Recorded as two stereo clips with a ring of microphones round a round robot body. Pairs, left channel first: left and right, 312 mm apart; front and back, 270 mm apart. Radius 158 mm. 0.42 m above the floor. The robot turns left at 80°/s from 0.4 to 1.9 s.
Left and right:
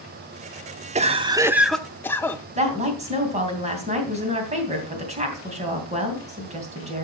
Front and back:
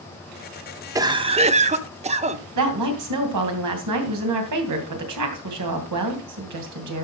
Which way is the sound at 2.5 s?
160° right.